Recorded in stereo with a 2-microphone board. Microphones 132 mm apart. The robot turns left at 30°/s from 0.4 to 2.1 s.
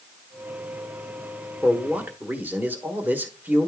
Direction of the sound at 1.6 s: 5° right (ahead or behind).